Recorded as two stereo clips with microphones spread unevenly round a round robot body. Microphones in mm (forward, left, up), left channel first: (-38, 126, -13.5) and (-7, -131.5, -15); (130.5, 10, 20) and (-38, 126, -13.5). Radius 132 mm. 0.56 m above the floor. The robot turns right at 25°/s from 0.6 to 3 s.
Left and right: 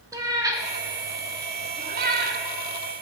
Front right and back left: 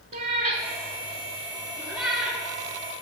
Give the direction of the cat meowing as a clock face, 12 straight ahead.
5 o'clock.